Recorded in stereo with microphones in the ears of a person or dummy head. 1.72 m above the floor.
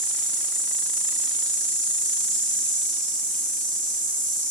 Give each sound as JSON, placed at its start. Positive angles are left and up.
{"t": 0.0, "sound": "an insect", "side_deg": 0, "distance_m": 1.6}